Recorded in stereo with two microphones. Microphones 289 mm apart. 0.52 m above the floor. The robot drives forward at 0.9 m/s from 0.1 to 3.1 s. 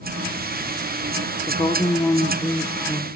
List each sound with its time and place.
1.5 s a woman speaking: 10° left (ahead or behind), 0.7 m; by 3.1 s 5° left (ahead or behind), 1.2 m